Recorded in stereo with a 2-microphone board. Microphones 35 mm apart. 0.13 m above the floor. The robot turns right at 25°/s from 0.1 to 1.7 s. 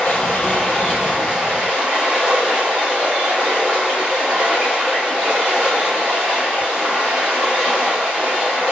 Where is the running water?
155° left, 1.2 m; by 8.7 s 165° right, 1.2 m.